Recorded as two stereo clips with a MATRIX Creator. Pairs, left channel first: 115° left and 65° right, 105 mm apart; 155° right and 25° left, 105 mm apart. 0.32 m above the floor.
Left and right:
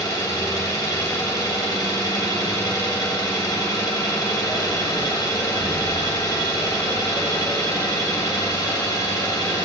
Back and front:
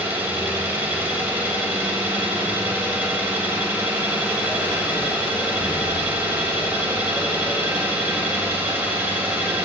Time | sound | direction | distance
0.0 | an engine running | 85° left | 1.4 m